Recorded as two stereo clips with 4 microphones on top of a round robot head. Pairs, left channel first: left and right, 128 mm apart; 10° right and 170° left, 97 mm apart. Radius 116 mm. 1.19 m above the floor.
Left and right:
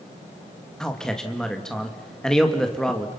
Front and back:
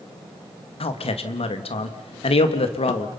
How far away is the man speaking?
About 2 m.